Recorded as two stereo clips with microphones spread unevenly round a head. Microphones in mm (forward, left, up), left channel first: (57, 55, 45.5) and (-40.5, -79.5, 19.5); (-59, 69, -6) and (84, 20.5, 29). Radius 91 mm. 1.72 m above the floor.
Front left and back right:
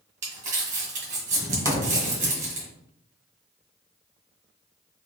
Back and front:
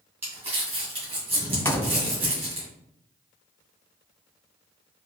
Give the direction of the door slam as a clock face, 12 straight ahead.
9 o'clock.